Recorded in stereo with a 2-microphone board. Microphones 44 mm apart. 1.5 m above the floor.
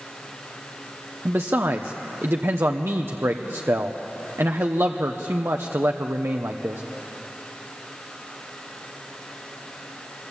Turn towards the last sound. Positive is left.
turn(degrees=-70)  # may be behind; listen again after turning